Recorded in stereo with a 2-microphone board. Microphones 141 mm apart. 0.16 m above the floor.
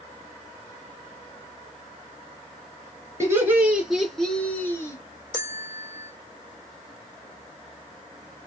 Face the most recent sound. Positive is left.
turn(degrees=15)  # may be behind; listen again after turning